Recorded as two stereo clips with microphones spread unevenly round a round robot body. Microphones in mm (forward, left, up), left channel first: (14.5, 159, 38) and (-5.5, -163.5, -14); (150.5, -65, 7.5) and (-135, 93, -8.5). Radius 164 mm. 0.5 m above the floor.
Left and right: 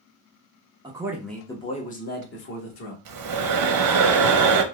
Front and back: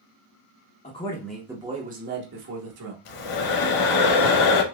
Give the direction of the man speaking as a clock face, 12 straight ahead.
2 o'clock.